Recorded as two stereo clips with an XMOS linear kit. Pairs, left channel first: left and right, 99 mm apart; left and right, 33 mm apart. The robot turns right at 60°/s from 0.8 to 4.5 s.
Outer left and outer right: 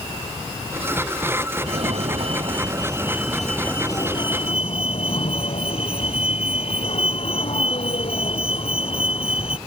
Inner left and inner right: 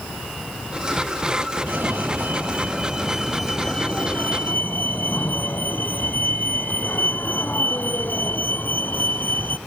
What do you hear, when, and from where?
1.7 s a fire alarm: 105° right; by 9.6 s 70° left